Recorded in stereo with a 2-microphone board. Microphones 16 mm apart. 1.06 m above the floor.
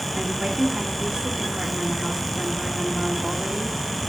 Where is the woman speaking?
65° right (ahead or behind), 2.5 m.